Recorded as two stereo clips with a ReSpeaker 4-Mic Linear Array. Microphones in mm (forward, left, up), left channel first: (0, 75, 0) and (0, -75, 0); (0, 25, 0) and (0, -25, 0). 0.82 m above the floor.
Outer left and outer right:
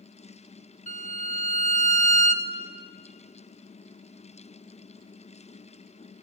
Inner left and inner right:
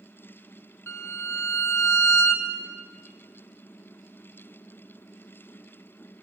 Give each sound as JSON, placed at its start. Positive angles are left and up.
{"t": 0.9, "sound": "a violin", "side_deg": 55, "distance_m": 1.0}